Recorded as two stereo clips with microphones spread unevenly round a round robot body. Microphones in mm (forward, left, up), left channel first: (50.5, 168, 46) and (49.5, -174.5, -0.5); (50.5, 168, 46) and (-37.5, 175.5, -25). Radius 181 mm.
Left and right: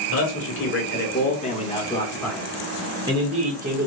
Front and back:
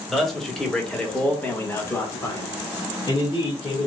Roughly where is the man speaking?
Behind left.